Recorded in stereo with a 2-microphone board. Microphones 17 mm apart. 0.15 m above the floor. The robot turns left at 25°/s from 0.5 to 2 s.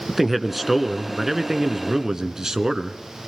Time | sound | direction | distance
0.1 | a man speaking | 15° right | 1.7 m